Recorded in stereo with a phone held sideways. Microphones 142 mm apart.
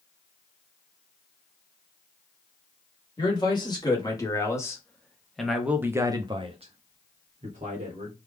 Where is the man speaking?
30° left (ahead or behind), 1.6 m; by 8.2 s 55° right (ahead or behind), 1.2 m.